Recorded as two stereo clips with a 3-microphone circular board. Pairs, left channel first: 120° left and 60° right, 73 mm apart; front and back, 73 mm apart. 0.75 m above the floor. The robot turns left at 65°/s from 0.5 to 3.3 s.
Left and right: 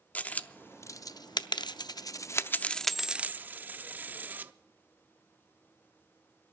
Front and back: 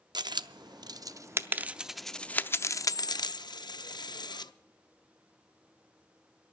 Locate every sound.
0.1 s a dropped coin: 175° right, 0.5 m; by 4.5 s 5° left, 0.5 m